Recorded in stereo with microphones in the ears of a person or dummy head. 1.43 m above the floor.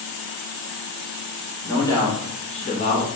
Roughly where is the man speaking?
Centre.